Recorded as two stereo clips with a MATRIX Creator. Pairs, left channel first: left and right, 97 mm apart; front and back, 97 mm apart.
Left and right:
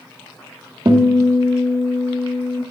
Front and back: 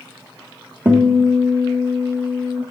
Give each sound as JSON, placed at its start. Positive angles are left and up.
{"t": 0.8, "sound": "a guitar", "azimuth_deg": -110, "distance_m": 1.3}